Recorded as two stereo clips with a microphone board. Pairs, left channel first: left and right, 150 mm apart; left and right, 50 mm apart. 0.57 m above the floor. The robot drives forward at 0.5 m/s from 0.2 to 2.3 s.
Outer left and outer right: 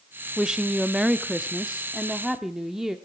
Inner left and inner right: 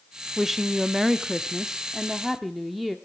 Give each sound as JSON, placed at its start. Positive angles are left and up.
{"t": 0.4, "sound": "a woman speaking", "side_deg": -5, "distance_m": 0.6}